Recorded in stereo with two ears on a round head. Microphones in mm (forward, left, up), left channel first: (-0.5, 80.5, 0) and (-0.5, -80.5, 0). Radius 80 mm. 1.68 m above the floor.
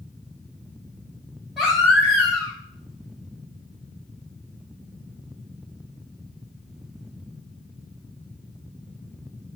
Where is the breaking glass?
I don't hear breaking glass.